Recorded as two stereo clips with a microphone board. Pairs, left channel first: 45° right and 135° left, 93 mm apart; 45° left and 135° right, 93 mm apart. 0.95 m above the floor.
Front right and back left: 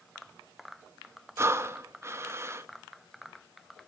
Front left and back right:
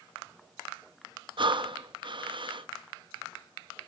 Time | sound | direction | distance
1.4 | breathing | 165° right | 0.5 m